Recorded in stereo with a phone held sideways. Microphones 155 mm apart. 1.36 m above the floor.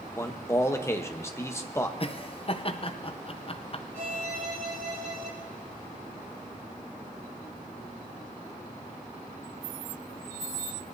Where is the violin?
85° right, 3.5 m.